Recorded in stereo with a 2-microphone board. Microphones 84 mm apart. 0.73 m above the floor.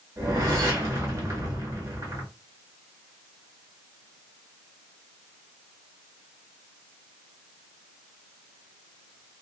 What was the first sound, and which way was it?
A whoosh, 40° right (ahead or behind).